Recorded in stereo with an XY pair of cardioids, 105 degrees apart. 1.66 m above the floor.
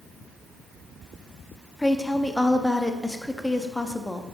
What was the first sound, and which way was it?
A woman speaking, 10° left.